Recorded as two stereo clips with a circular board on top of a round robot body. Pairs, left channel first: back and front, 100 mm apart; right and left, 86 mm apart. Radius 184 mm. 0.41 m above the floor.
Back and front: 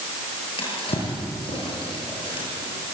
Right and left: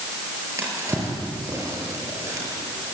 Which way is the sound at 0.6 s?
145° left.